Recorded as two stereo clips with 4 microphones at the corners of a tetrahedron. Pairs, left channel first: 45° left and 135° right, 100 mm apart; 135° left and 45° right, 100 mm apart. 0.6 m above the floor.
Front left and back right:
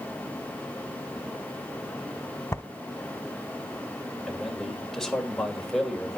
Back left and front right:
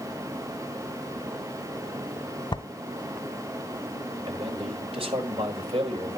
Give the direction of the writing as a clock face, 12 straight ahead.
9 o'clock.